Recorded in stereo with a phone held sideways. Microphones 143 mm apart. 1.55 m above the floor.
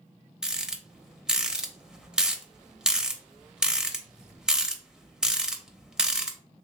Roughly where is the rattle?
Centre.